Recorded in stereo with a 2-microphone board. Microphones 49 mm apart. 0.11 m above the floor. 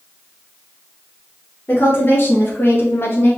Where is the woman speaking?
45° left (ahead or behind), 1.8 m.